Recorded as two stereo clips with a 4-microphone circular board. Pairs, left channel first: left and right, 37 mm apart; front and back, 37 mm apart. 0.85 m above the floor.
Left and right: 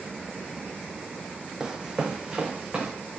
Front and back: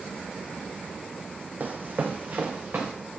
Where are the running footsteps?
155° right, 1.4 m; by 2.9 s 150° right, 3 m.